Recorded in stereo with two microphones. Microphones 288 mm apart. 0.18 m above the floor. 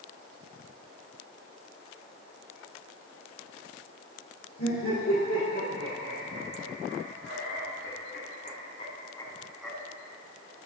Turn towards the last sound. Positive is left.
turn(degrees=0)  # may be behind; listen again after turning